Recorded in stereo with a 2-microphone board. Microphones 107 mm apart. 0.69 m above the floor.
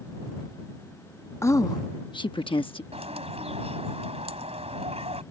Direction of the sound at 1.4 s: 25° left (ahead or behind).